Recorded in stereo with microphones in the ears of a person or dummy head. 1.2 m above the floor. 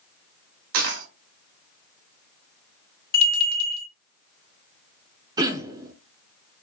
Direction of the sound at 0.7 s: 65° right (ahead or behind).